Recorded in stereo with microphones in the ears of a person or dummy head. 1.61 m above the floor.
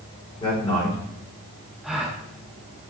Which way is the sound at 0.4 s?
20° left (ahead or behind).